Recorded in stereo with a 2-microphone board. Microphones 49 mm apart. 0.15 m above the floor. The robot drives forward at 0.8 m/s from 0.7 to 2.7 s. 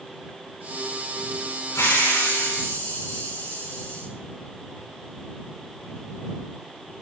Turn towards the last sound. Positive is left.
turn(degrees=85)